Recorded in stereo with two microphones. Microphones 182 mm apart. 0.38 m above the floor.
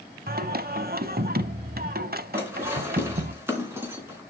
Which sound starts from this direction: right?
Singing, at 0.3 s.